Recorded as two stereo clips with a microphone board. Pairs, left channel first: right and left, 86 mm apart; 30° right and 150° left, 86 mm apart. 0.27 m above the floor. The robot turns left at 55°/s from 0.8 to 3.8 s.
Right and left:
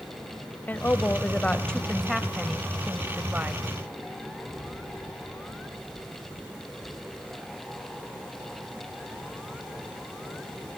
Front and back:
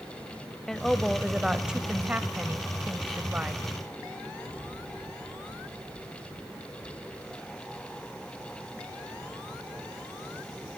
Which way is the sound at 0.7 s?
105° right.